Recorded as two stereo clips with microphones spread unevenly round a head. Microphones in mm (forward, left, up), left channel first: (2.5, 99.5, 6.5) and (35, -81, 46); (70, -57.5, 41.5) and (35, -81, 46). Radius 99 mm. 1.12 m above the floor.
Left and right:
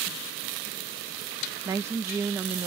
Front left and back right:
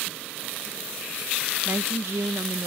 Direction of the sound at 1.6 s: 160° right.